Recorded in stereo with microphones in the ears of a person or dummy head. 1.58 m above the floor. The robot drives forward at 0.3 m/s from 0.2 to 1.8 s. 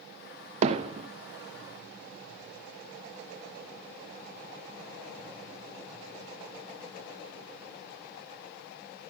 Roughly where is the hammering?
Right.